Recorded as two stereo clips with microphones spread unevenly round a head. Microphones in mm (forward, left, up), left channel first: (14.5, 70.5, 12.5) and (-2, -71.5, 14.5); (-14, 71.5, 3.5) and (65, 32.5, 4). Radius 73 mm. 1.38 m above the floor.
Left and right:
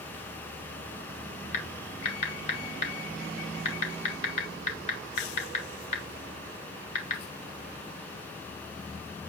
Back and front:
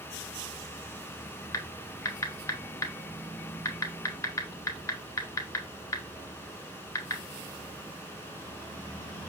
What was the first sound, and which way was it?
Typing on a keyboard, 115° left.